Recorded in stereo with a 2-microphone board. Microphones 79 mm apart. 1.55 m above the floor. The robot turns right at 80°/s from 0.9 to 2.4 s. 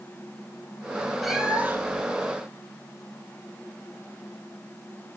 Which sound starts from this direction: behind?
A cat meowing, at 1.2 s.